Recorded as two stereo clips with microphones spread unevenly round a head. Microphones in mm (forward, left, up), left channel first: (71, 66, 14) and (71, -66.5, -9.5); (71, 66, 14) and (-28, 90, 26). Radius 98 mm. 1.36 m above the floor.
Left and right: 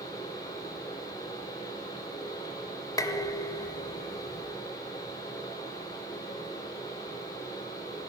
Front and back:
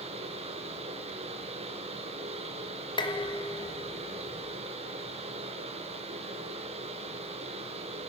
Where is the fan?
160° left, 4 m.